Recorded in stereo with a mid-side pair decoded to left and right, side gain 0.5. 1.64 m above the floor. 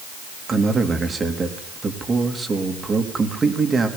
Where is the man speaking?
35° right, 3.5 m.